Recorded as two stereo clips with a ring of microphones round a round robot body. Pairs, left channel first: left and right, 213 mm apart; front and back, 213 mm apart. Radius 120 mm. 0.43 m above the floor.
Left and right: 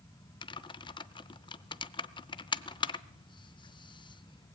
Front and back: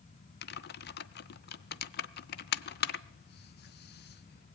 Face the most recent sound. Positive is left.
turn(degrees=25)